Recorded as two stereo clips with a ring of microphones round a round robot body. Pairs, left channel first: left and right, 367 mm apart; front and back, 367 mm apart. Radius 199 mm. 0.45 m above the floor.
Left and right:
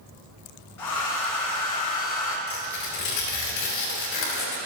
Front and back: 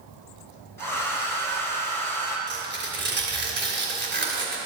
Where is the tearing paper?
120° left, 2.5 m.